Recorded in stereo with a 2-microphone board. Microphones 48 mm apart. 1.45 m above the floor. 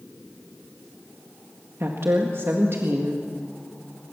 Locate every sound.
1.8 s a woman speaking: 60° right (ahead or behind), 1.8 m